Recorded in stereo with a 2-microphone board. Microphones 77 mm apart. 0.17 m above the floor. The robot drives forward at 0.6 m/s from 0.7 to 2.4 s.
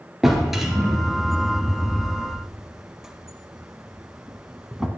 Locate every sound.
0.2 s a drawer: 5° right (ahead or behind), 1.5 m; by 4.9 s 10° right (ahead or behind), 0.7 m